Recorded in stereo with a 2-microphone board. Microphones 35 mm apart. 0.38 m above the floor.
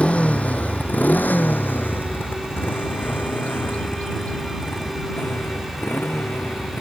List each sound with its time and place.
0.0 s a motorcycle: 40° left (ahead or behind); by 6.8 s 75° left (ahead or behind)
3.0 s a bird: 45° left (ahead or behind)